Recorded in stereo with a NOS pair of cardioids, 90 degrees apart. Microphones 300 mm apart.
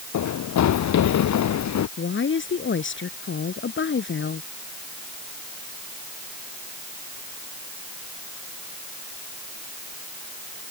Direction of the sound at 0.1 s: 70° left.